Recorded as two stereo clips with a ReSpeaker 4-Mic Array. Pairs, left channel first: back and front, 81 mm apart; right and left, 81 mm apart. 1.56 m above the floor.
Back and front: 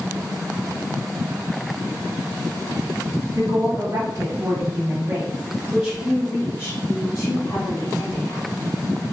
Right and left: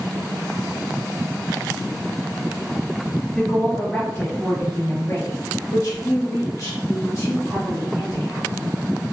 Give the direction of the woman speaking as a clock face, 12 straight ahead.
12 o'clock.